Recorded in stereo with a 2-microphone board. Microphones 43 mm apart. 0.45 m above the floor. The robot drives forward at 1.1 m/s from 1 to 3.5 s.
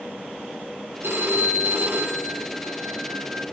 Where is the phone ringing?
75° right (ahead or behind), 3 m; by 3.4 s 55° right (ahead or behind), 3.5 m.